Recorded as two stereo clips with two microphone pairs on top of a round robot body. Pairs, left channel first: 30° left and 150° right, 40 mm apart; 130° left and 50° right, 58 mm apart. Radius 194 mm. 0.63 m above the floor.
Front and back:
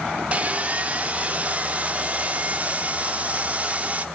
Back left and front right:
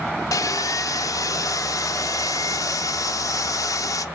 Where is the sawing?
150° left, 0.5 m.